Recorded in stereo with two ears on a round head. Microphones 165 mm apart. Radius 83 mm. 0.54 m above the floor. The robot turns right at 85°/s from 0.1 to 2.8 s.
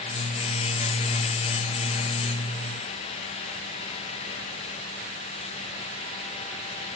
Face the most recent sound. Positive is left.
No sound to turn to.